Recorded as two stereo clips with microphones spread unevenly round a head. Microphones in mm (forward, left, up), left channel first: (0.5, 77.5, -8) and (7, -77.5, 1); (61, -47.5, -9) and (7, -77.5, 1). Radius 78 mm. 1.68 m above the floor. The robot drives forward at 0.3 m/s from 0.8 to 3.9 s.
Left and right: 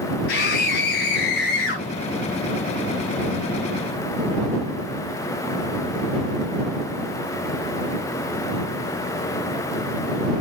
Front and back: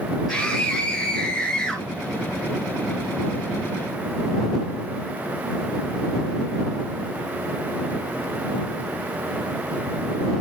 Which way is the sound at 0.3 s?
120° left.